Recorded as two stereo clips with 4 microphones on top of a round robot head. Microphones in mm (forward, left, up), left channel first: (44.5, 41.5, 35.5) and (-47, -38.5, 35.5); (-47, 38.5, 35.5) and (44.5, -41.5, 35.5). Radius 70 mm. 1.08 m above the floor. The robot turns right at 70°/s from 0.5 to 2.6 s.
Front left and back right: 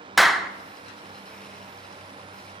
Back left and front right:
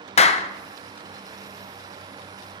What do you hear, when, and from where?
0.2 s a clap: 130° left, 0.6 m